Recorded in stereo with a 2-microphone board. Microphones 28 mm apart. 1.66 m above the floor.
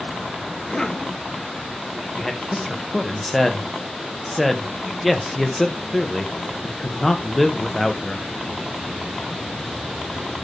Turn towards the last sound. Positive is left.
turn(degrees=0)  # may be behind; listen again after turning